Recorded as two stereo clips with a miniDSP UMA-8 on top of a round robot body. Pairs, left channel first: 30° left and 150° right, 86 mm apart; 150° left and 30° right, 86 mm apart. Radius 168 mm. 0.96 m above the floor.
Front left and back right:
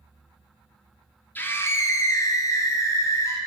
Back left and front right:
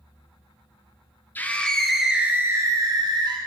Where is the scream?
90° left, 1.1 m; by 3.4 s 20° right, 1.3 m.